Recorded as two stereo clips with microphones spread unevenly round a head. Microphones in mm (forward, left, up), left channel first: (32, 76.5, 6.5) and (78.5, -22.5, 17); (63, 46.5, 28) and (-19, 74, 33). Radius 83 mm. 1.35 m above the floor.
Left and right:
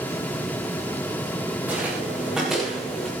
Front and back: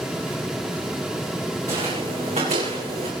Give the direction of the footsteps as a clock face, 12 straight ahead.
5 o'clock.